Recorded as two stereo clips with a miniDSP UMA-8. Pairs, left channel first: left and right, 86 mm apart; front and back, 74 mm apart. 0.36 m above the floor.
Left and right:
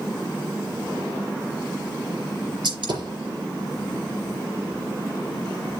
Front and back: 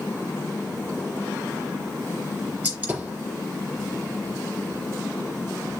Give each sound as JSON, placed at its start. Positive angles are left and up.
{"t": 2.6, "sound": "a gunshot", "azimuth_deg": -110, "distance_m": 4.5}